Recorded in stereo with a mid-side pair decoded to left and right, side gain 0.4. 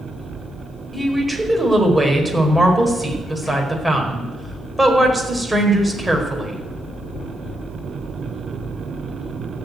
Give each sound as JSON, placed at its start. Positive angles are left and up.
{"t": 0.9, "sound": "a woman speaking", "azimuth_deg": -10, "distance_m": 4.5}